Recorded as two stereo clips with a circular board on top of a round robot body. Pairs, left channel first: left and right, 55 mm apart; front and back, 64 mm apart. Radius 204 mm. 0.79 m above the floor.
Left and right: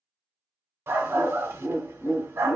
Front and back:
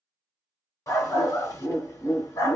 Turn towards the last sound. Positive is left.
turn(degrees=-45)